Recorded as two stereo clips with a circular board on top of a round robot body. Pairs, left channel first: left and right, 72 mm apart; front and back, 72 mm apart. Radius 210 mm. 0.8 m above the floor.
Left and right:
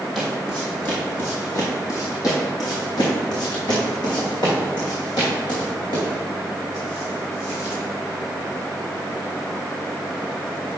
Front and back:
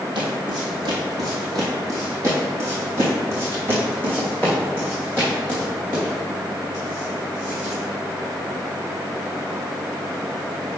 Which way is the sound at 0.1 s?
Straight behind.